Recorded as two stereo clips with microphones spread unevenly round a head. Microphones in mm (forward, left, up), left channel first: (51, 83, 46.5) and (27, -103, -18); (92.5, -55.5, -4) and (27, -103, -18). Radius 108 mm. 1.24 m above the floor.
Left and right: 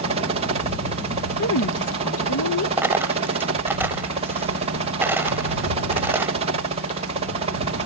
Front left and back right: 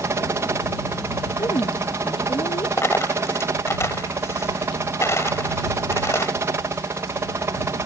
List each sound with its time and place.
0.0 s a helicopter: 105° right
1.4 s a woman speaking: 100° left
2.8 s a dropped coin: 5° right